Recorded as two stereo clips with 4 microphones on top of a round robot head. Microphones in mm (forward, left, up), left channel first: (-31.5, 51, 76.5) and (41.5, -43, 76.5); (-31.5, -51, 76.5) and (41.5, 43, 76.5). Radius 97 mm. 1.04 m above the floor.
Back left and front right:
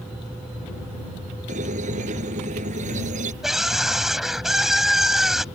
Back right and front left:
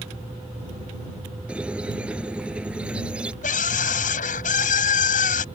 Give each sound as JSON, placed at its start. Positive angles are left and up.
{"t": 1.5, "sound": "a squeak", "azimuth_deg": -30}
{"t": 3.4, "sound": "a scream", "azimuth_deg": -140}